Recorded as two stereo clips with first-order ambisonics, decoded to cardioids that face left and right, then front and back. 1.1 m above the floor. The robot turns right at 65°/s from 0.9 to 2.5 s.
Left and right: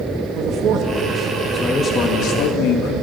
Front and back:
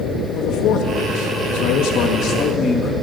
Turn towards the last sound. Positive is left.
turn(degrees=65)